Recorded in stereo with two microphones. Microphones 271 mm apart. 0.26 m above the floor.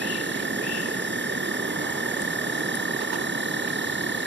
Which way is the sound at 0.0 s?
40° right (ahead or behind).